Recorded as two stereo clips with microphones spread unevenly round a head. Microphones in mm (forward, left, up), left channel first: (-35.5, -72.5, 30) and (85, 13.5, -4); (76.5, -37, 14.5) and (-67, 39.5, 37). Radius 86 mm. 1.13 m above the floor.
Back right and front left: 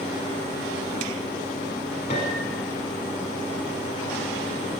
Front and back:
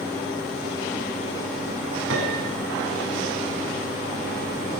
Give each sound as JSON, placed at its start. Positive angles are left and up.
{"t": 2.1, "sound": "a piano", "azimuth_deg": 160, "distance_m": 8.0}